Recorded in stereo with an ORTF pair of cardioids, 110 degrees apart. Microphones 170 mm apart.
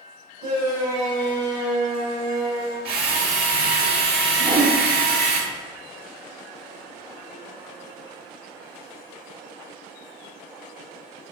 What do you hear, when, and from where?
0.4 s a shout: 65° right, 2.5 m
2.9 s a drill: 70° right, 1.2 m
4.4 s a whoosh: 45° right, 1.6 m